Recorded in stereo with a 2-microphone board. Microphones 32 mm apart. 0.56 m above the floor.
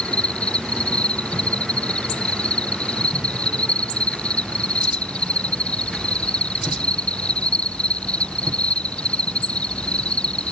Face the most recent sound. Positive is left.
turn(degrees=40)  # may be behind; listen again after turning